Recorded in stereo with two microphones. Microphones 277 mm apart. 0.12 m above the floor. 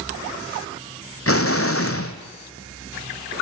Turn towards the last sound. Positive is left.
turn(degrees=50)  # may be behind; listen again after turning